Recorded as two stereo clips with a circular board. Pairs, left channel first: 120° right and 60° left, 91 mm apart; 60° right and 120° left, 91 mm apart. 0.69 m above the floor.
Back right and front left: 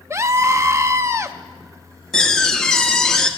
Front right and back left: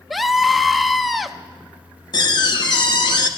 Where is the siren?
I don't hear a siren.